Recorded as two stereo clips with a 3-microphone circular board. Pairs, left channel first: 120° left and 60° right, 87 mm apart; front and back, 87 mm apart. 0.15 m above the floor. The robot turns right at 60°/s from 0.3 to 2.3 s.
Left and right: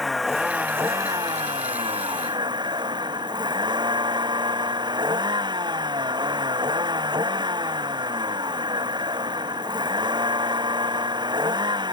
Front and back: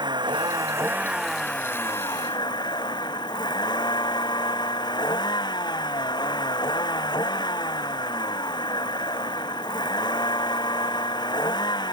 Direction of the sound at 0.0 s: 150° right.